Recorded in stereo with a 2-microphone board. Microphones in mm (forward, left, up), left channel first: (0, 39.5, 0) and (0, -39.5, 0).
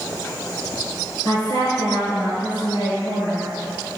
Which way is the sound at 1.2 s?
65° left (ahead or behind).